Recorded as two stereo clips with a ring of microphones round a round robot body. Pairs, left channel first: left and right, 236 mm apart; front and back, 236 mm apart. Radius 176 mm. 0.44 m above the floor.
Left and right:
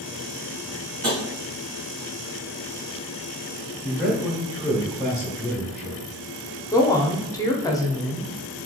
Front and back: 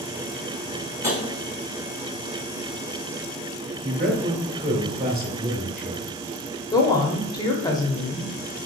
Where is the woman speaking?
40° left, 0.7 m.